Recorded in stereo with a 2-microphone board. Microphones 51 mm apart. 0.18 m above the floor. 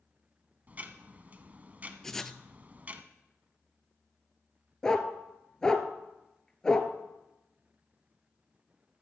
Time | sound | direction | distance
0.7 | ticking | 35° right (ahead or behind) | 0.9 m
2.0 | writing | 10° left (ahead or behind) | 0.6 m
4.8 | a dog barking | 15° left (ahead or behind) | 1.1 m